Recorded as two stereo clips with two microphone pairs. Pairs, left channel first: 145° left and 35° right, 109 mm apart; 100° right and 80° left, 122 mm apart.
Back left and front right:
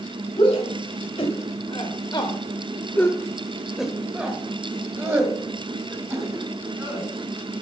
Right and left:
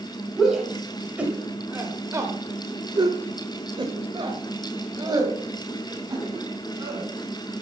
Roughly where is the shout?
Behind.